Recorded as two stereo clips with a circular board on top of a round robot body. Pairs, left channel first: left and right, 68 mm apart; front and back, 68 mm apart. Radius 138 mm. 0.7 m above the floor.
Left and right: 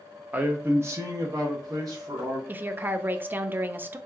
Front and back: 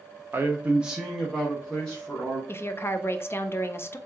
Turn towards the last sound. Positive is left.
turn(degrees=-35)